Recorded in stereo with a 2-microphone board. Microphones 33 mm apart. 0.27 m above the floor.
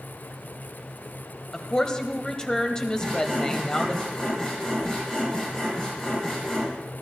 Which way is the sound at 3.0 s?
15° left (ahead or behind).